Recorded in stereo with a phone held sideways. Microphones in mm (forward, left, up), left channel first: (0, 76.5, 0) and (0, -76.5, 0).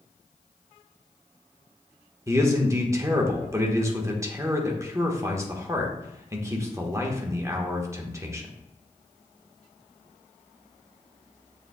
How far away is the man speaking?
About 1.2 m.